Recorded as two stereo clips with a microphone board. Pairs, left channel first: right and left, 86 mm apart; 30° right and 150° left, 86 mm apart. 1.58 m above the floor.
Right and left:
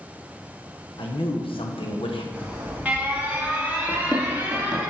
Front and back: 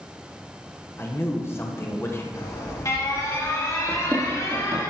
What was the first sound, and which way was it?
A man speaking, 90° right.